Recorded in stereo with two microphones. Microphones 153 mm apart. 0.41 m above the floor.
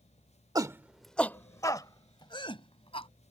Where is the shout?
25° right (ahead or behind); by 3.1 s 35° left (ahead or behind).